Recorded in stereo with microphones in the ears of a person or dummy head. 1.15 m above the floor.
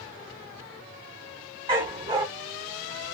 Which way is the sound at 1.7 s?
25° right (ahead or behind).